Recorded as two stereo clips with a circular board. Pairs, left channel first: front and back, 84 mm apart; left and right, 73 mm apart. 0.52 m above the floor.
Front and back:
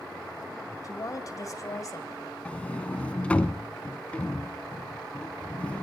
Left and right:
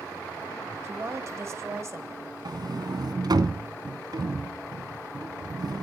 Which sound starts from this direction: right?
A sliding door, at 2.5 s.